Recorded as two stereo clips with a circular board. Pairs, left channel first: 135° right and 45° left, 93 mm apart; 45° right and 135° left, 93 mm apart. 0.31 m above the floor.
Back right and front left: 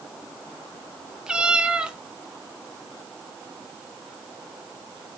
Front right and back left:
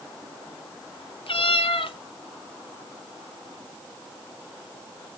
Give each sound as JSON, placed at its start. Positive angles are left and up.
{"t": 1.3, "sound": "a cat meowing", "azimuth_deg": -35, "distance_m": 1.2}